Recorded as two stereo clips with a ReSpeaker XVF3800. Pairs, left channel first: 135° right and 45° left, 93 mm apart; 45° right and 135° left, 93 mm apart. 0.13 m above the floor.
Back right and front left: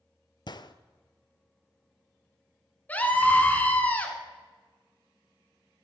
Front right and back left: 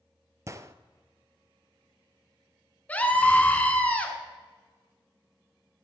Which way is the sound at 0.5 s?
170° right.